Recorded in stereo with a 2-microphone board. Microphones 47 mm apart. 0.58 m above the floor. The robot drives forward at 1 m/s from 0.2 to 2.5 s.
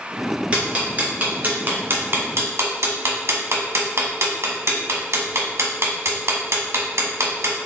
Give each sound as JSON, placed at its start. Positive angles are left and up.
{"t": 0.5, "sound": "ticking", "side_deg": -25, "distance_m": 2.5}